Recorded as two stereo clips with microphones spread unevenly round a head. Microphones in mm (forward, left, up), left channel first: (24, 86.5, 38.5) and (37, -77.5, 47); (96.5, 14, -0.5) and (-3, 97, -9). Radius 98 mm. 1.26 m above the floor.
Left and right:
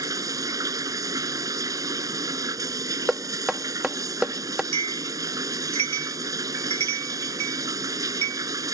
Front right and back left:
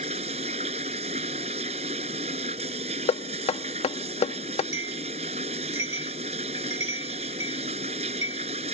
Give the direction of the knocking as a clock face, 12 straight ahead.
12 o'clock.